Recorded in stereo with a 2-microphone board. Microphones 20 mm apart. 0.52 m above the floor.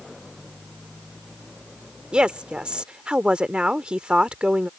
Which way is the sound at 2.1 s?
55° right (ahead or behind).